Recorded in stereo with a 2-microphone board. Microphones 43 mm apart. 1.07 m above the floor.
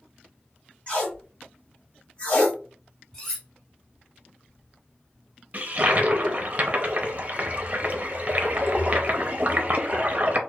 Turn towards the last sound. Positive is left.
turn(degrees=-35)  # may be behind; listen again after turning